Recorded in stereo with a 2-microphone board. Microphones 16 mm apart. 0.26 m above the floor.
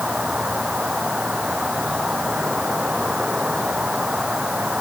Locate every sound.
0.0 s an insect: 75° right (ahead or behind)